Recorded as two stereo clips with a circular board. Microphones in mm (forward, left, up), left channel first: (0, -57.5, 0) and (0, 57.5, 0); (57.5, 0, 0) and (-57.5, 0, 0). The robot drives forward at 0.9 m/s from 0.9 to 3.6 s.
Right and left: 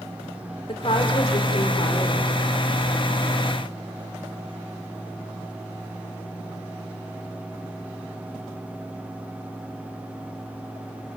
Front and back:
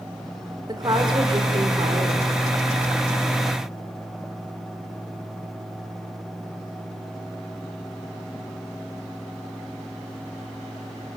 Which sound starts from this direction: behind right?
A woman speaking, at 0.7 s.